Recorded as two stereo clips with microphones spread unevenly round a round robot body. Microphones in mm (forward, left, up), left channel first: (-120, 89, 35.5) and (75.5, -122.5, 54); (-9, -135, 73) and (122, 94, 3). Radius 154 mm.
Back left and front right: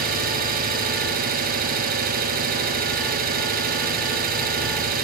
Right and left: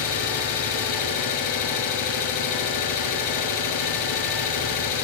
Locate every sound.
0.0 s an engine running: 110° right, 2.5 m